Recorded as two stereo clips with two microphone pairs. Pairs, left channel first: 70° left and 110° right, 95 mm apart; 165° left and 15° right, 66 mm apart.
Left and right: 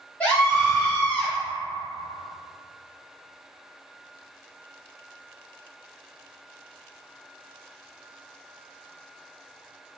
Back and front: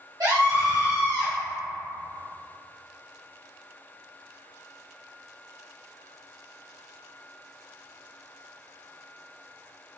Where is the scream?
5° right, 1.5 m.